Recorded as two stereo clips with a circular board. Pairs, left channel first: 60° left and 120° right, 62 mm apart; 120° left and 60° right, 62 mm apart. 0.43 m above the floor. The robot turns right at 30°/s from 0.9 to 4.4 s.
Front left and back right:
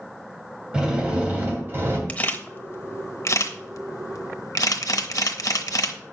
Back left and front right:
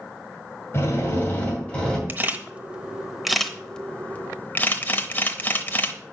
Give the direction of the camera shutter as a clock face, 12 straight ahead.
12 o'clock.